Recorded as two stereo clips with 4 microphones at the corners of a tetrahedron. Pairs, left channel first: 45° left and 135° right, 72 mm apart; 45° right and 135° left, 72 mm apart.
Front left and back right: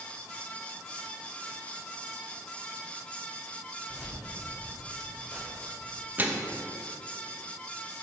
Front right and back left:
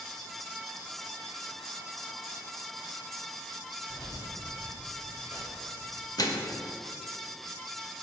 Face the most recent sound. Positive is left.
turn(degrees=-70)